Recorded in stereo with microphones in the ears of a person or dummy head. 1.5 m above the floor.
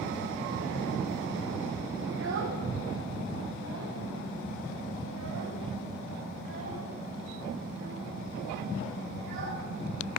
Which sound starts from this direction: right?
A child speaking, at 2.1 s.